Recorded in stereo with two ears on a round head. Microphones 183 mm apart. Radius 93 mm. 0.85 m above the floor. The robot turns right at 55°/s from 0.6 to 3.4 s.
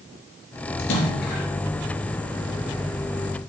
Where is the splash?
100° left, 3.5 m; by 1.5 s 135° left, 3.5 m.